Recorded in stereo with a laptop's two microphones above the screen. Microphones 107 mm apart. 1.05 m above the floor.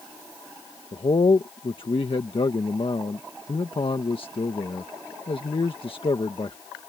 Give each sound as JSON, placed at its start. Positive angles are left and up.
{"t": 0.9, "sound": "a man speaking", "side_deg": 55}